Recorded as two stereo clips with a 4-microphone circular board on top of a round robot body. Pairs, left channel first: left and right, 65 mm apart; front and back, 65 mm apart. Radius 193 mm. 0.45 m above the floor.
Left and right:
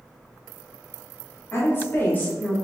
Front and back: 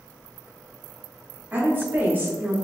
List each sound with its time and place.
1.5 s a woman speaking: 130° left, 1.9 m; by 2.5 s 145° left, 1.6 m